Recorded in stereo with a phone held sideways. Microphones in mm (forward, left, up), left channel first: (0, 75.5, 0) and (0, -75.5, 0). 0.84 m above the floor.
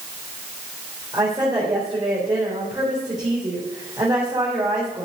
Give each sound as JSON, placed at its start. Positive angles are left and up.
{"t": 1.1, "sound": "a woman speaking", "side_deg": -25, "distance_m": 3.0}